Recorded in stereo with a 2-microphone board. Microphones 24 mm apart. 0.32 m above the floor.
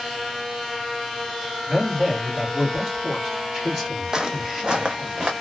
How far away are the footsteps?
About 0.6 m.